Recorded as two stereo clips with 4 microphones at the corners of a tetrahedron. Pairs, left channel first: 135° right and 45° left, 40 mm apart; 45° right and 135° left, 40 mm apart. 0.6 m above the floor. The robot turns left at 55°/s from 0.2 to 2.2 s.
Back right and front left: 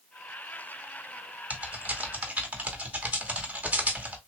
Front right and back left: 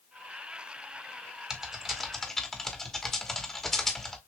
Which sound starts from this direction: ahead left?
Typing on a keyboard, at 1.5 s.